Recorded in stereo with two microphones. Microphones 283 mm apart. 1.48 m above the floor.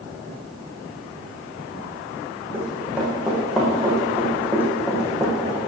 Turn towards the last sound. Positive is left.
turn(degrees=15)  # may be behind; listen again after turning